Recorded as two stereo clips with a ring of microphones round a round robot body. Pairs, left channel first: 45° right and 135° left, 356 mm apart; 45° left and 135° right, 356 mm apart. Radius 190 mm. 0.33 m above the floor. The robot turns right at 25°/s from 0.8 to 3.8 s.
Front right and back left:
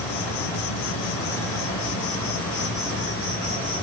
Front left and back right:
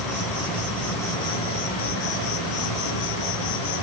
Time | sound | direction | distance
0.0 | an insect | 45° right | 2.5 m